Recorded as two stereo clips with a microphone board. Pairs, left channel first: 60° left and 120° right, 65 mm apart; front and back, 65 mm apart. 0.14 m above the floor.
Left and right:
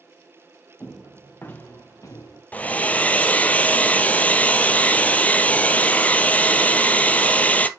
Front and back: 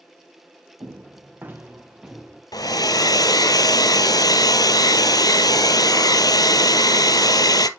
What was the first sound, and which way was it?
Footsteps, 135° left.